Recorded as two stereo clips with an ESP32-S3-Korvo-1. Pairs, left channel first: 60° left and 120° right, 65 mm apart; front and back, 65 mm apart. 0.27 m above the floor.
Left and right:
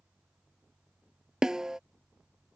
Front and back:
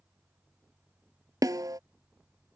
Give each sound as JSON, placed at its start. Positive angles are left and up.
{"t": 1.4, "sound": "a snare drum", "azimuth_deg": 160}